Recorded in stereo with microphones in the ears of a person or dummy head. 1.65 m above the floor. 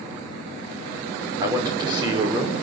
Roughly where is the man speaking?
Right.